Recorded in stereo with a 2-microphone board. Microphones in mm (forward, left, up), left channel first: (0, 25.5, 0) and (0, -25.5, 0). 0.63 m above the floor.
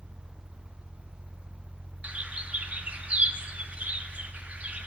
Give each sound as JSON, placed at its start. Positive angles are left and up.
{"t": 2.0, "sound": "a bird", "side_deg": -30, "distance_m": 0.7}